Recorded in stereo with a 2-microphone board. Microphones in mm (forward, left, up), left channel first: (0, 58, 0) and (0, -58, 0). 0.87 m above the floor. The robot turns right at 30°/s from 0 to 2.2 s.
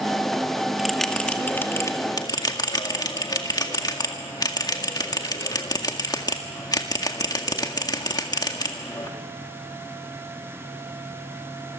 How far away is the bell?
About 1.9 m.